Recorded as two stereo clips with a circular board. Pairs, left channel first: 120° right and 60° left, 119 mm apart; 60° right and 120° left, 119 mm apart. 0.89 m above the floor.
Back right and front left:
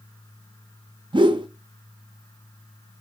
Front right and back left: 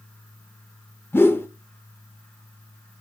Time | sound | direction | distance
1.1 | a whoosh | 10° left | 0.6 m